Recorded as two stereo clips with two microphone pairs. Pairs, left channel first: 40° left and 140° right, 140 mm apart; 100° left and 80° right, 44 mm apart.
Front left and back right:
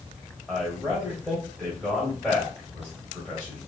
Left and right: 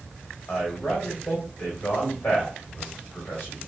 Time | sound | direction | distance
0.5 | a man speaking | 145° left | 1.6 m